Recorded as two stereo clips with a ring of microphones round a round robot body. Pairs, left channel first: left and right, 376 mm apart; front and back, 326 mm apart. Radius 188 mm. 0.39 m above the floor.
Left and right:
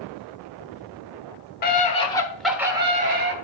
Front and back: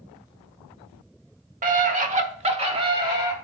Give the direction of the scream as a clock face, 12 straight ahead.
8 o'clock.